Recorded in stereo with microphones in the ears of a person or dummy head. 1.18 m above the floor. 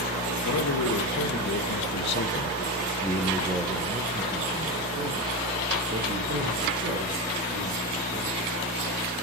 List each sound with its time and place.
0.4 s a man speaking: 80° left, 1.5 m; by 8.5 s 60° right (ahead or behind), 3 m